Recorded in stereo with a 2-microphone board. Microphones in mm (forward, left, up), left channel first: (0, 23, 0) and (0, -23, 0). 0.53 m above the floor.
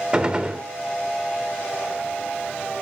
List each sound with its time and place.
0.1 s a gunshot: 20° right (ahead or behind), 1.5 m